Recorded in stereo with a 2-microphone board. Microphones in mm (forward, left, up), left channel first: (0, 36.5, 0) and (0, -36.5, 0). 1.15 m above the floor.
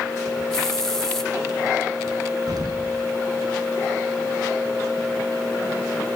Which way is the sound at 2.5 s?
65° right (ahead or behind).